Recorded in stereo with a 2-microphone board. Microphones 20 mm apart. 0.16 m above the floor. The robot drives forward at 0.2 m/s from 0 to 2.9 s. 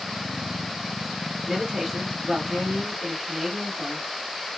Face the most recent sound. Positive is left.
turn(degrees=-40)  # may be behind; listen again after turning